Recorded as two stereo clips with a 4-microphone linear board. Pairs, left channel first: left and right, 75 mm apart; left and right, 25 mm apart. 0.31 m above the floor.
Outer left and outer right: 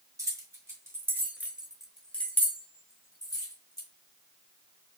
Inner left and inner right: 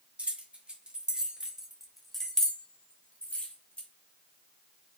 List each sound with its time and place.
0.2 s keys jangling: 50° right (ahead or behind), 1.7 m; by 3.9 s 60° left (ahead or behind), 1.8 m